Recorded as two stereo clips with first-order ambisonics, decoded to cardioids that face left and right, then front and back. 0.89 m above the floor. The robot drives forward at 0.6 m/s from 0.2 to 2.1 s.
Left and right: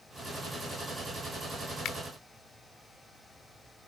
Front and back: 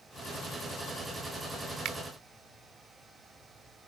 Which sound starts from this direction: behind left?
A finger snap, at 1.9 s.